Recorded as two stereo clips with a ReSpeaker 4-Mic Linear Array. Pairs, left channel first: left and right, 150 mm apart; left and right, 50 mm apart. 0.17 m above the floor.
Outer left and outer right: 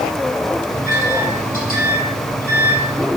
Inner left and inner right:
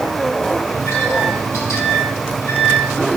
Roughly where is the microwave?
Left.